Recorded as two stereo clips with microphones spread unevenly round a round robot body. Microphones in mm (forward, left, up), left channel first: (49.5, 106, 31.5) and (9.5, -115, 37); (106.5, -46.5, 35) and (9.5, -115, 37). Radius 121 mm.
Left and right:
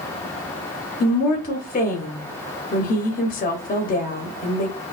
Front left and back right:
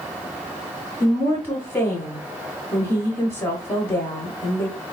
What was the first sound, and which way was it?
A woman speaking, 90° left.